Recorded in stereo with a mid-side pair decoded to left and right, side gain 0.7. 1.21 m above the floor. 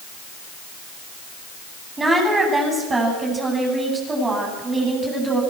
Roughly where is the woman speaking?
Ahead.